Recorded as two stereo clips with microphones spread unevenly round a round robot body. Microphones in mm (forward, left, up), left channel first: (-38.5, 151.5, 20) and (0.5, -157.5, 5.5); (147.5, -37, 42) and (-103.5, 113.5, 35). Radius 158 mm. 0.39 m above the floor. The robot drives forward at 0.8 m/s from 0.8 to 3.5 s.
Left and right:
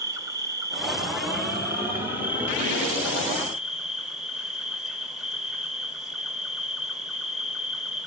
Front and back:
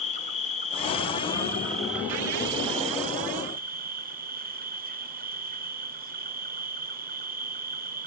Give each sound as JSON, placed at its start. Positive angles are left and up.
{"t": 0.0, "sound": "an insect", "azimuth_deg": -30, "distance_m": 1.9}